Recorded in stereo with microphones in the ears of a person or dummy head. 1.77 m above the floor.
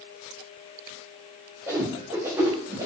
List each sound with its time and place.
1.7 s a whoosh: 15° right (ahead or behind), 0.7 m